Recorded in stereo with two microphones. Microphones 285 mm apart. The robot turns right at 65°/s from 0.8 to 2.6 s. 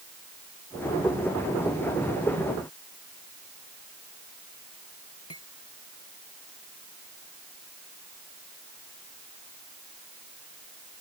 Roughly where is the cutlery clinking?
Left.